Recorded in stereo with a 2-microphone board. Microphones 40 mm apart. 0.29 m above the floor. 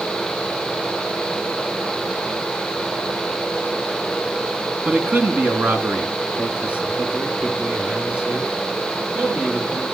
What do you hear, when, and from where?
4.8 s a man speaking: 40° right (ahead or behind), 2.5 m; by 9.8 s 25° right (ahead or behind), 7.5 m